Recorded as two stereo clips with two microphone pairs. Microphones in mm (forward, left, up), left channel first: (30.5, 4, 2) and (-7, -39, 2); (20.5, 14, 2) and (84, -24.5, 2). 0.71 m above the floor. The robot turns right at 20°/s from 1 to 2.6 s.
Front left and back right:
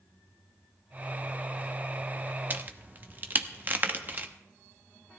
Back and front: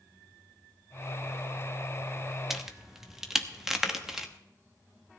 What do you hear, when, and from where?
2.5 s a crack: 110° right, 1.0 m